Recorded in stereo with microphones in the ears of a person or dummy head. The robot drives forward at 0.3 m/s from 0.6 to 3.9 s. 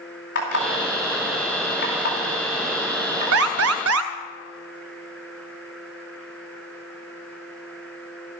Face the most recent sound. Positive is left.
turn(degrees=-85)